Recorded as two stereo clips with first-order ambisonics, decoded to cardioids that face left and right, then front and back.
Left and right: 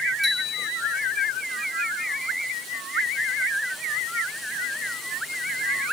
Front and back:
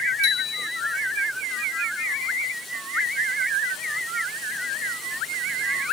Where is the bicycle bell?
Straight ahead, 6 m.